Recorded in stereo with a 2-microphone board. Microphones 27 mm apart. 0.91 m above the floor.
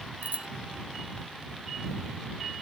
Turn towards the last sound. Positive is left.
turn(degrees=-55)  # may be behind; listen again after turning